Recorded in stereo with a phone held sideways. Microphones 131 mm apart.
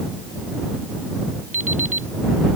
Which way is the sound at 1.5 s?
75° right (ahead or behind).